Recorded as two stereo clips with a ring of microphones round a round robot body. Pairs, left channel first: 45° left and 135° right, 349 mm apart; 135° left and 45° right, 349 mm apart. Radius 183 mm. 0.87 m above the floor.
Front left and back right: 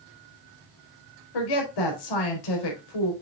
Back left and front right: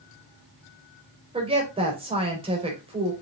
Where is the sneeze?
No sneeze in this recording.